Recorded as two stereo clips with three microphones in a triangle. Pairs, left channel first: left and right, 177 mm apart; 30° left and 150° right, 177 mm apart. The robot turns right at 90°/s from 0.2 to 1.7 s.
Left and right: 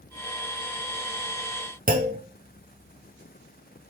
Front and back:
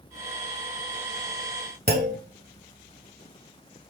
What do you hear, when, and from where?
1.9 s a clunk: 125° right, 1.5 m